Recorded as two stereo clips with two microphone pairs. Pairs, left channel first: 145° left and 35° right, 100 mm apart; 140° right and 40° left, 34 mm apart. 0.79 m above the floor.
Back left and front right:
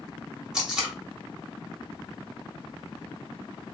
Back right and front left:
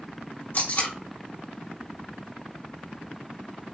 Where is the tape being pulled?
120° right, 1.8 m.